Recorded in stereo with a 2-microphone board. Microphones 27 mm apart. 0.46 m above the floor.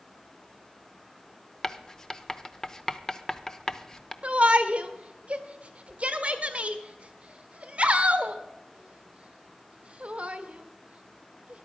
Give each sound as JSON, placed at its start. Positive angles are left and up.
{"t": 1.6, "sound": "writing", "side_deg": 20, "distance_m": 0.7}
{"t": 4.2, "sound": "a shout", "side_deg": -45, "distance_m": 1.4}